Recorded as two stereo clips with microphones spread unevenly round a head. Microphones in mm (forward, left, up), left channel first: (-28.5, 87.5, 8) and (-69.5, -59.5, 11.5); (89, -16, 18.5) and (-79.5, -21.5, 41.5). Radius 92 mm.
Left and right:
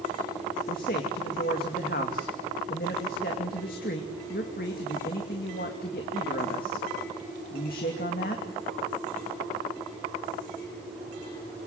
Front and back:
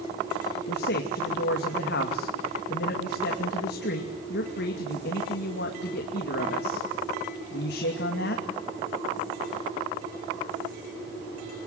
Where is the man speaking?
30° left, 2.5 m.